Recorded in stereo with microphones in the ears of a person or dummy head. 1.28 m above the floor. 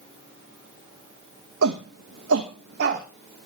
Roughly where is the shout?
Right.